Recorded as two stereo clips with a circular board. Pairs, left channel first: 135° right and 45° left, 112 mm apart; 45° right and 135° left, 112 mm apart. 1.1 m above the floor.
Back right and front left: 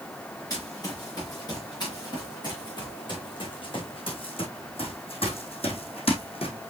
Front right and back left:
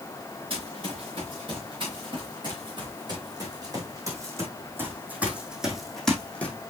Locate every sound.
0.5 s running footsteps: 170° left, 5.5 m; by 6.7 s 115° right, 2 m